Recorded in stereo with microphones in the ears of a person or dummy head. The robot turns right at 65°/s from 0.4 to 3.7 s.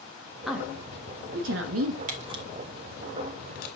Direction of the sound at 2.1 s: 35° right (ahead or behind).